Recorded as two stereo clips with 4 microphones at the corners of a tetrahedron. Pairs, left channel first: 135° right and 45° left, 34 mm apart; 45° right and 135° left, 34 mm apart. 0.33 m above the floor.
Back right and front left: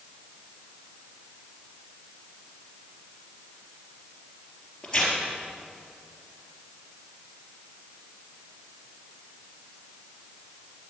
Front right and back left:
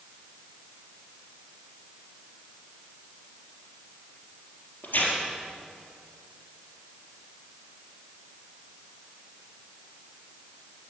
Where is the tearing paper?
60° right, 4 m.